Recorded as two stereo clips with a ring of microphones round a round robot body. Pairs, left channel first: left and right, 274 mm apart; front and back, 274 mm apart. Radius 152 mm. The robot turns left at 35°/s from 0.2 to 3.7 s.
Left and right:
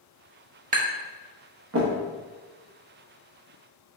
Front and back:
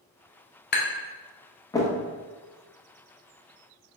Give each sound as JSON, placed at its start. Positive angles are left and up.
{"t": 0.7, "sound": "tapping", "azimuth_deg": -40, "distance_m": 0.8}